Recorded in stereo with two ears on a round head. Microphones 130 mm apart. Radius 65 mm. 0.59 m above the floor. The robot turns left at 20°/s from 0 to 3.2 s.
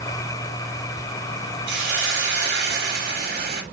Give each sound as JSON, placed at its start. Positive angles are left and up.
{"t": 1.7, "sound": "a hiss", "azimuth_deg": -80, "distance_m": 1.1}